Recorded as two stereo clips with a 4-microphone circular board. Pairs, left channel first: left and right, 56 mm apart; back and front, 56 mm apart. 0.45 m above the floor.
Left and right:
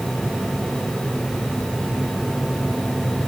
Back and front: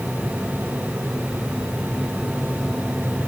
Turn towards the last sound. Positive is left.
No sound to turn to.